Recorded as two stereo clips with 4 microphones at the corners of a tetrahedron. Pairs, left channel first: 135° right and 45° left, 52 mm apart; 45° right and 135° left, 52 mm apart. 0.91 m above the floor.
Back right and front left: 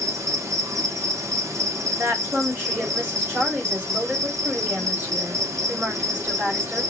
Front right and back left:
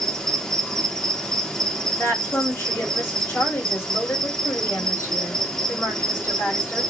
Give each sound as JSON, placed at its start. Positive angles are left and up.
{"t": 0.0, "sound": "an insect", "azimuth_deg": 30, "distance_m": 0.8}
{"t": 1.9, "sound": "a woman speaking", "azimuth_deg": -10, "distance_m": 1.9}